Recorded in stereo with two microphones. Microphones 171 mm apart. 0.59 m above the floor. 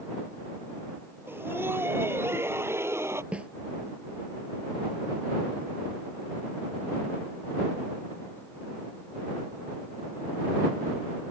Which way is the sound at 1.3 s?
10° right (ahead or behind).